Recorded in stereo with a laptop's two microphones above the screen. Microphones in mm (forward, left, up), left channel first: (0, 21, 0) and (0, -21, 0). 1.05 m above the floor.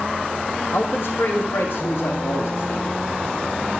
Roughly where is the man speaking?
Left.